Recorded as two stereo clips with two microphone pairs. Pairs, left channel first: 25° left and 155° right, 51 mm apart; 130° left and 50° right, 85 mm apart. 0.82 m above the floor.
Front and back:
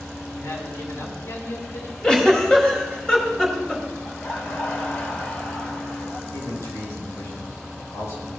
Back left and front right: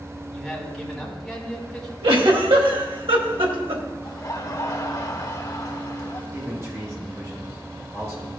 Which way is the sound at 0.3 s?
40° left.